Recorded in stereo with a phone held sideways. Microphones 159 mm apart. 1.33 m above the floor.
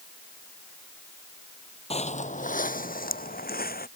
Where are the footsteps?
40° left (ahead or behind); by 3.9 s 75° left (ahead or behind).